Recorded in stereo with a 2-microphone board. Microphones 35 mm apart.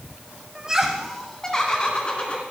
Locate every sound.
0.6 s laughter: 25° right (ahead or behind), 1.2 m; by 2.4 s 30° left (ahead or behind), 2.5 m